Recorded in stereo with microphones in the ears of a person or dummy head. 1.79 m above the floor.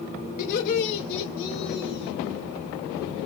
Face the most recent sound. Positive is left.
turn(degrees=55)  # may be behind; listen again after turning